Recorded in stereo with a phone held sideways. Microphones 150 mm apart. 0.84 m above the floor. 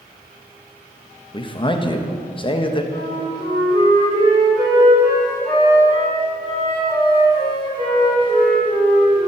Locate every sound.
1.3 s a man speaking: 35° left (ahead or behind), 0.5 m
2.9 s a flute: 35° left (ahead or behind), 2.5 m